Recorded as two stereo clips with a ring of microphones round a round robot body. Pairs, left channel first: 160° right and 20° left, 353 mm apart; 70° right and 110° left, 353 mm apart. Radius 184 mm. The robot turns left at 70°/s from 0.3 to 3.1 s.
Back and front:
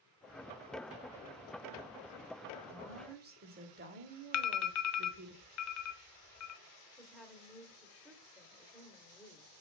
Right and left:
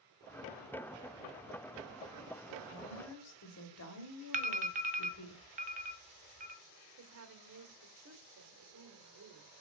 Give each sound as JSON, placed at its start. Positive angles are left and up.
{"t": 2.7, "sound": "a woman speaking", "azimuth_deg": -5, "distance_m": 1.9}
{"t": 4.3, "sound": "an alarm", "azimuth_deg": 175, "distance_m": 0.8}
{"t": 7.0, "sound": "a woman speaking", "azimuth_deg": 110, "distance_m": 1.5}